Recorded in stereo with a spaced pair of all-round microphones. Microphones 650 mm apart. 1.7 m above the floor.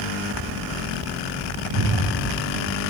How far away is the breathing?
About 1.5 m.